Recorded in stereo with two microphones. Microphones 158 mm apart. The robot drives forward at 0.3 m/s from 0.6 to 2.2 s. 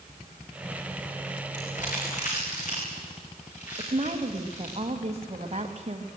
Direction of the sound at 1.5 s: 55° left (ahead or behind).